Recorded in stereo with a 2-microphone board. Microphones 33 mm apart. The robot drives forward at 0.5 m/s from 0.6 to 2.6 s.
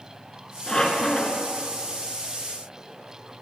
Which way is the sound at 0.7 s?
15° left (ahead or behind).